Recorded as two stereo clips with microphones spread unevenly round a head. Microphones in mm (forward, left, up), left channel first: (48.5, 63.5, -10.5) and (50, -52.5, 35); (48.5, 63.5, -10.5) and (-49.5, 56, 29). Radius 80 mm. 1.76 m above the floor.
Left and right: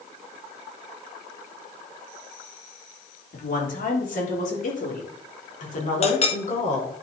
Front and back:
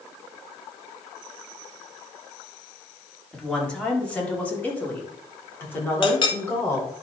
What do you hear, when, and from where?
3.3 s a woman speaking: 90° left, 3.5 m; by 6.9 s 70° left, 5 m
6.0 s a clink: 50° left, 1.4 m